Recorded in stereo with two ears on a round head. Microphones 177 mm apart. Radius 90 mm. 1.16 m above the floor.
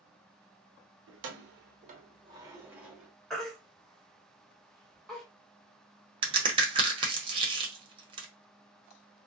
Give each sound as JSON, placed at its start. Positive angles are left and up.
{"t": 1.1, "sound": "keys jangling", "side_deg": -70, "distance_m": 0.8}
{"t": 3.3, "sound": "a baby crying", "side_deg": 0, "distance_m": 1.1}
{"t": 6.2, "sound": "a crack", "side_deg": -25, "distance_m": 0.9}